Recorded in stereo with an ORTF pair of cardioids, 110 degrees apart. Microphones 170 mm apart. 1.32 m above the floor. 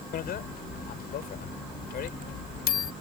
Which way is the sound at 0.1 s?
65° left.